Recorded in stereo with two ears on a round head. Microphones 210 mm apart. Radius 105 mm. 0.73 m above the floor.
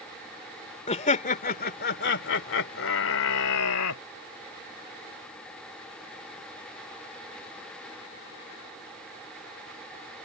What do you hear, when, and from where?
0.9 s laughter: 30° left (ahead or behind); by 4.0 s 75° left (ahead or behind)